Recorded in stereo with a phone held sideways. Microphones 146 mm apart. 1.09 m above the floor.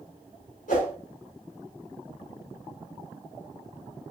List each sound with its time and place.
0.7 s a whoosh: 70° left (ahead or behind), 3.5 m